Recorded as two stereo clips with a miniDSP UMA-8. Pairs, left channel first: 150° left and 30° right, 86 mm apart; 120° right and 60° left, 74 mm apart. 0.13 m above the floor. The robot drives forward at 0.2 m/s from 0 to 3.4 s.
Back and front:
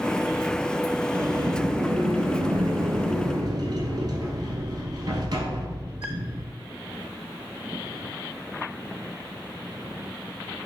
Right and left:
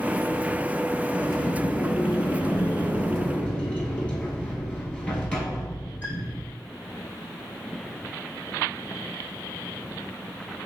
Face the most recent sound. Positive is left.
turn(degrees=-50)